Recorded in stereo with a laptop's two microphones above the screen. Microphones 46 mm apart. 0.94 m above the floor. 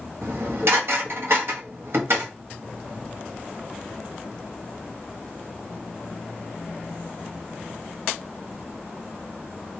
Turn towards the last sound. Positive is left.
turn(degrees=-60)  # may be behind; listen again after turning